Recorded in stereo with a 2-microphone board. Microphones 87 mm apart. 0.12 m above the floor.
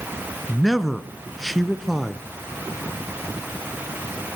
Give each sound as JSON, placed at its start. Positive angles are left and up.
{"t": 0.5, "sound": "a man speaking", "side_deg": 0, "distance_m": 1.1}